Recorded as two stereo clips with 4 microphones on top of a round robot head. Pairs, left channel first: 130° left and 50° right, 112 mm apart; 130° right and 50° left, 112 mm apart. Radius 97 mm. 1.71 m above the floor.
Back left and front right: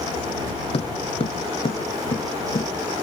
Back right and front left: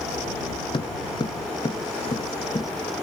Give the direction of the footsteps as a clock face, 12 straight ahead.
6 o'clock.